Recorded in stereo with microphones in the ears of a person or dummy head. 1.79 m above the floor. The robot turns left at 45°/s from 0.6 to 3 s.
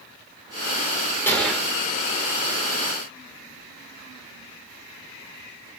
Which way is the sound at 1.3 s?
10° left (ahead or behind).